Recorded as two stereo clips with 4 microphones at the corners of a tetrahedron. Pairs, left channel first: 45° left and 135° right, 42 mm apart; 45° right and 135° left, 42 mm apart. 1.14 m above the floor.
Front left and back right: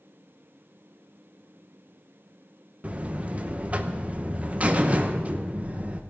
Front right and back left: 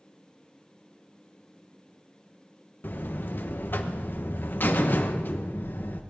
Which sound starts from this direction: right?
A buzzer, at 2.8 s.